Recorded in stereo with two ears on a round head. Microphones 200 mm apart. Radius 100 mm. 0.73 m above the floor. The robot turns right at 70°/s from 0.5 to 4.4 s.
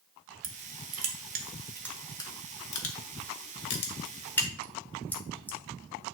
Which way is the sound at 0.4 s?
80° right.